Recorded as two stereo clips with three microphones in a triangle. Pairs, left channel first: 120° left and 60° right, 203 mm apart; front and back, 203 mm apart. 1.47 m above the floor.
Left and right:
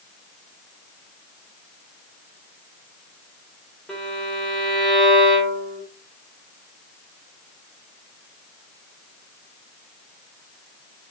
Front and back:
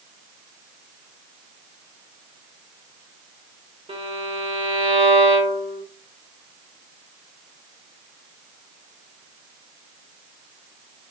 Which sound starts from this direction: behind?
A violin, at 3.9 s.